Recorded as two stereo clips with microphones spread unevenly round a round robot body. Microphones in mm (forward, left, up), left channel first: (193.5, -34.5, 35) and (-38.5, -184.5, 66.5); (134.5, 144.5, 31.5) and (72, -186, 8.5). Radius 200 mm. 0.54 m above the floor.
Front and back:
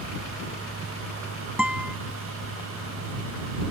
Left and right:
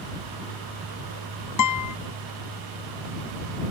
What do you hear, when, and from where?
1.6 s a guitar: 125° left